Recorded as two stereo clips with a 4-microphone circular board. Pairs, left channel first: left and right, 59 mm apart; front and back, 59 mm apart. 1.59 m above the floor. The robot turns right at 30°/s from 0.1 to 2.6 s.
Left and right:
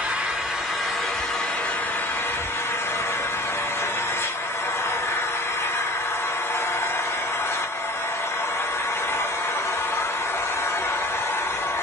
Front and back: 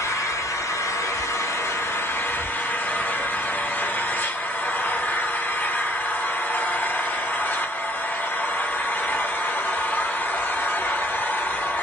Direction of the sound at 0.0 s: 20° right.